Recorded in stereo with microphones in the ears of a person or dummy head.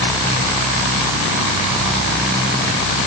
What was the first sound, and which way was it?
Only background noise.